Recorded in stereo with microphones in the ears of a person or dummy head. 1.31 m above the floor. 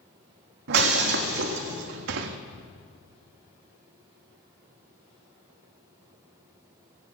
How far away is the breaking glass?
About 1.5 m.